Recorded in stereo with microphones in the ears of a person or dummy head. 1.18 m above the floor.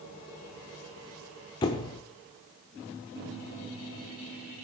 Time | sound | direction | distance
1.6 | a squeak | 25° left (ahead or behind) | 0.9 m